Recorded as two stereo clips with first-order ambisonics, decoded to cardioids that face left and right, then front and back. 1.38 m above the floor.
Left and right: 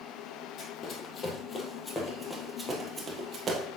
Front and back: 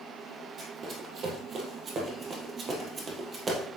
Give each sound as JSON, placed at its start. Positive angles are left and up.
{"t": 0.6, "sound": "running footsteps", "azimuth_deg": 125, "distance_m": 1.9}